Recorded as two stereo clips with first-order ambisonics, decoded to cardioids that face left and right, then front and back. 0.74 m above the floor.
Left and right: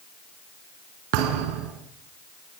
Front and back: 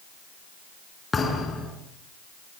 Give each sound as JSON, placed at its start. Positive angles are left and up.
{"t": 1.1, "sound": "a thud", "azimuth_deg": -75, "distance_m": 4.0}